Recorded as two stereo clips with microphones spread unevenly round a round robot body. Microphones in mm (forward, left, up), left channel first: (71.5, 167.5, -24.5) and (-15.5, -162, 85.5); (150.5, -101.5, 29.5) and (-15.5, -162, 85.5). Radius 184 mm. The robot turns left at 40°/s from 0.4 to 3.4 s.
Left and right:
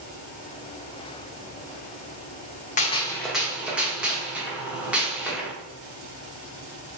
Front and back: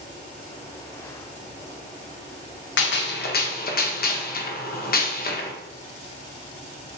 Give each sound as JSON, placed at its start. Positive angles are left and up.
{"t": 2.8, "sound": "a gunshot", "azimuth_deg": 0, "distance_m": 0.7}